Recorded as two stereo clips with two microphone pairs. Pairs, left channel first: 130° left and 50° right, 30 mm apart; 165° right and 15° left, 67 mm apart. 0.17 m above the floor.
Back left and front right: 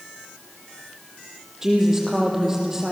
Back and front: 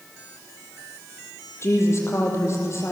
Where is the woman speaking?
120° right, 6 m.